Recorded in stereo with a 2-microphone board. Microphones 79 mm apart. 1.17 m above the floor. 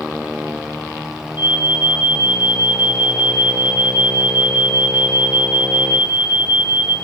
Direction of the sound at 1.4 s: 85° left.